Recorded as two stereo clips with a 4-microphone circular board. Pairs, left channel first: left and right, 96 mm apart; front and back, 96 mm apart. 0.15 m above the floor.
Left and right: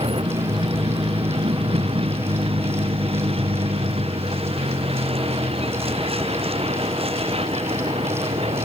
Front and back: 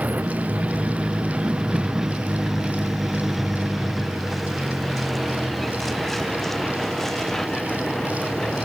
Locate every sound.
0.0 s a vehicle: 105° right; by 8.7 s 85° right